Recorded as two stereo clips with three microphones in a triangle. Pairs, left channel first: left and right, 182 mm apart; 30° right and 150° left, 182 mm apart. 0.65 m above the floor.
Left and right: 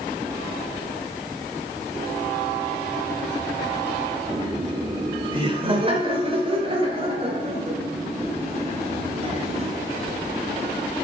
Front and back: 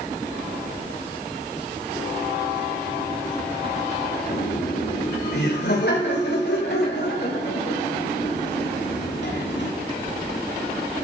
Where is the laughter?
30° right, 1.7 m; by 9.7 s 35° right, 5.5 m.